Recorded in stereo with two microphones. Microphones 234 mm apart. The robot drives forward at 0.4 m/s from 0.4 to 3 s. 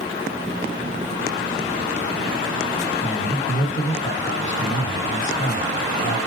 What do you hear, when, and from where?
3.0 s a man speaking: 55° left (ahead or behind), 4 m